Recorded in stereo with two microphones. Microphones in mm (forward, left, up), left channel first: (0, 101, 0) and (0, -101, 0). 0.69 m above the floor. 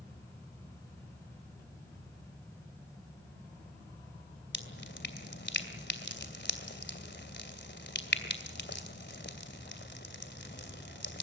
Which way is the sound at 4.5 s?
60° left (ahead or behind).